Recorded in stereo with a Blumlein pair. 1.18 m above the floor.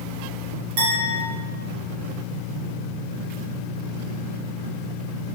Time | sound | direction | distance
0.8 | a clink | 45° right | 2 m